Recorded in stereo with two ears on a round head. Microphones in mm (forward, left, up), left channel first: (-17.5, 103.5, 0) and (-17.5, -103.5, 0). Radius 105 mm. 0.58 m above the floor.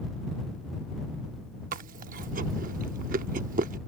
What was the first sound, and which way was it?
Chewing, 40° right (ahead or behind).